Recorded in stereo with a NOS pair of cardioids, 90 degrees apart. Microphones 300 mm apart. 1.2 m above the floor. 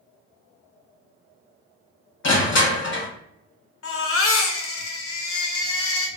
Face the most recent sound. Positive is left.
turn(degrees=45)